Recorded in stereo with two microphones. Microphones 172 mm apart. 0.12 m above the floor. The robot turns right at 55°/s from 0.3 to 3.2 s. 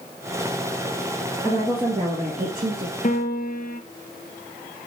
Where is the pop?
No pop in this recording.